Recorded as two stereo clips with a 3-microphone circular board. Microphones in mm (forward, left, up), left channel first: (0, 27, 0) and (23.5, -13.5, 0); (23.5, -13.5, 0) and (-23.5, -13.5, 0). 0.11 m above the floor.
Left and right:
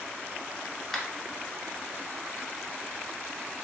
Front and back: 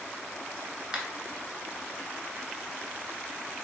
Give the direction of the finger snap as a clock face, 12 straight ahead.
6 o'clock.